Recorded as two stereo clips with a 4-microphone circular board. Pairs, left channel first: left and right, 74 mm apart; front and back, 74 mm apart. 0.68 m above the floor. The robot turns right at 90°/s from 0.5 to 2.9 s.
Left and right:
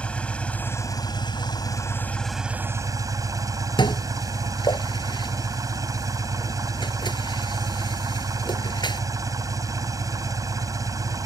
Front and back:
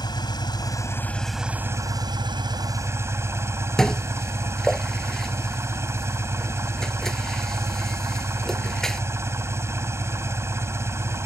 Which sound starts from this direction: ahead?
An engine running, at 0.0 s.